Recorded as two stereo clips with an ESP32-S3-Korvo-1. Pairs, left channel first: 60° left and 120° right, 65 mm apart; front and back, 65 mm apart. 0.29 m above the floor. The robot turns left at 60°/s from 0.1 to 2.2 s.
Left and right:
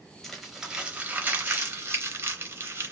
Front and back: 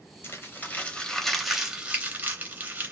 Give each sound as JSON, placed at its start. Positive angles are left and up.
{"t": 0.2, "sound": "crumpling", "azimuth_deg": -20, "distance_m": 0.6}